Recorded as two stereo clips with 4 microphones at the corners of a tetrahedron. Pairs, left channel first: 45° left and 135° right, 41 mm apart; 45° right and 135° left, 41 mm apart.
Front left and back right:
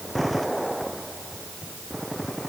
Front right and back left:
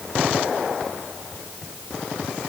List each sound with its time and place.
Only background noise.